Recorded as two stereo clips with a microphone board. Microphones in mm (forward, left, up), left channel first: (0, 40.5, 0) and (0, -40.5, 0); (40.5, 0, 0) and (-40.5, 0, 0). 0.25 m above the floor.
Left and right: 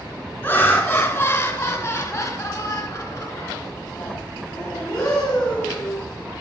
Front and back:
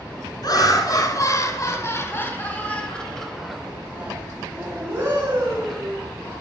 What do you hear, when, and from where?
0.4 s laughter: 20° left, 2 m; by 6.0 s 160° left, 2 m